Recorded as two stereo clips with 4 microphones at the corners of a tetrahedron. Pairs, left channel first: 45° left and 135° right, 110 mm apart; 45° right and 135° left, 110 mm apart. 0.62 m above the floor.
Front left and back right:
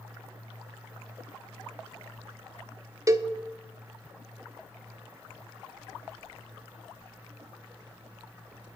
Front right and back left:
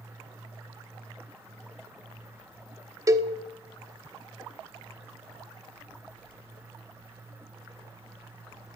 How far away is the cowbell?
About 0.8 m.